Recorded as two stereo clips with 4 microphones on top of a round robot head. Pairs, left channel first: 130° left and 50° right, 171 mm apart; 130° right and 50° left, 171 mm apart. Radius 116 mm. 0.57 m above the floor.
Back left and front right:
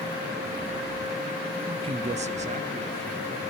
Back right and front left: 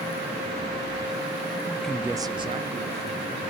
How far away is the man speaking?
About 0.6 m.